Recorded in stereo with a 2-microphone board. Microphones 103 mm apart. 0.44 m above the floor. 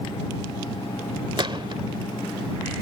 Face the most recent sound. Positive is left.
turn(degrees=-55)  # may be behind; listen again after turning